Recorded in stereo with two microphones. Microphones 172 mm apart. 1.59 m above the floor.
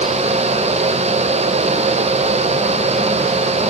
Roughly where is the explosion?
I don't hear an explosion.